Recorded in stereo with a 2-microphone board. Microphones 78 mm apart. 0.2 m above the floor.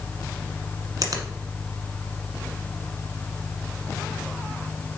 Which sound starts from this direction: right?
A finger snap, at 1.0 s.